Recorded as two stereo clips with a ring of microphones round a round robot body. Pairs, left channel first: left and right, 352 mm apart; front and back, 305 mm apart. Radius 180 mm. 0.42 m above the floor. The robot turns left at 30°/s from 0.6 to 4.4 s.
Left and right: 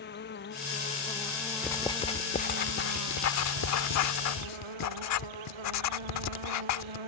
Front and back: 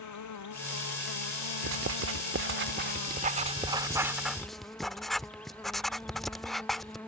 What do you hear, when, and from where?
0.0 s an insect: 25° left; by 7.1 s 85° right
1.6 s writing: 170° left; by 7.0 s 90° left